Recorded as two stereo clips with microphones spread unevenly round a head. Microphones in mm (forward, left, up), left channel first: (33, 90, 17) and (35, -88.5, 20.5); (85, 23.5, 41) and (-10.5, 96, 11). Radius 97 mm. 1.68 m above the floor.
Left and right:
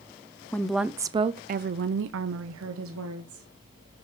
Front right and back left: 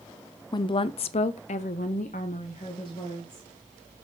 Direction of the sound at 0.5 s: 10° left.